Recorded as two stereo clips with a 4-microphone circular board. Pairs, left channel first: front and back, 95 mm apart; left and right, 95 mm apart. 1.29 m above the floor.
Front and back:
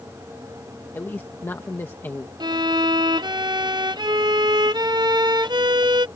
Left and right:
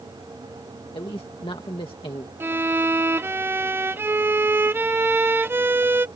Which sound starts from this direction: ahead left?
A man speaking, at 0.9 s.